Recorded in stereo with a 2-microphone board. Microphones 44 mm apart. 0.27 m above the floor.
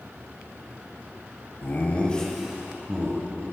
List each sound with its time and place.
1.6 s laughter: 45° left (ahead or behind), 1.3 m; by 3.4 s 45° right (ahead or behind), 1.9 m